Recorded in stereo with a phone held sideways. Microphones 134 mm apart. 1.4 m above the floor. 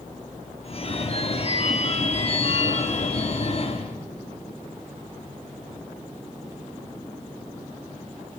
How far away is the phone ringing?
About 2 m.